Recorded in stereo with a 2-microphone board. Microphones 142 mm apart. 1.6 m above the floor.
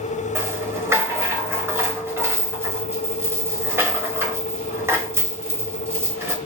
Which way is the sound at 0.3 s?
20° right (ahead or behind).